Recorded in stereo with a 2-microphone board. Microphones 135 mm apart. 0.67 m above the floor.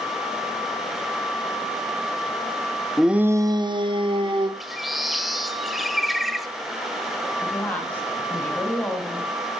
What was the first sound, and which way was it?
A shout, centre (ahead or behind).